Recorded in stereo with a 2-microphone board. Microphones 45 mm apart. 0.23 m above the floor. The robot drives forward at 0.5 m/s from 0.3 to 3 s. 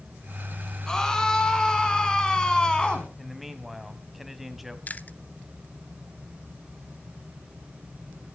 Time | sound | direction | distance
0.9 | a scream | 15° left (ahead or behind) | 3 m
3.2 | a man speaking | 5° right (ahead or behind) | 1.3 m
4.9 | chewing | 40° left (ahead or behind) | 0.6 m